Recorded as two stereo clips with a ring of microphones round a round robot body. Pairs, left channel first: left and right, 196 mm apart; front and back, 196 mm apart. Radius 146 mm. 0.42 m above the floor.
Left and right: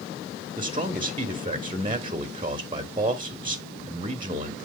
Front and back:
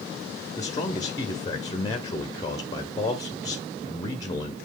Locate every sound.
0.6 s a man speaking: 55° right, 1.1 m